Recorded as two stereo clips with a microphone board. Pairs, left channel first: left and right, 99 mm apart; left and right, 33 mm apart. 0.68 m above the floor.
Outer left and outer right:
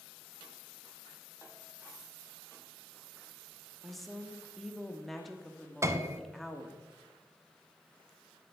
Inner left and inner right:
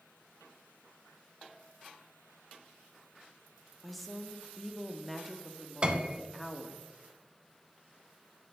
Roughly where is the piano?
Right.